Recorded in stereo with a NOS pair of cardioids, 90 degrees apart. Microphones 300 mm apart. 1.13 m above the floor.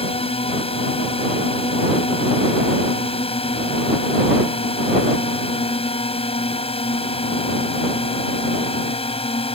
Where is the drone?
20° left.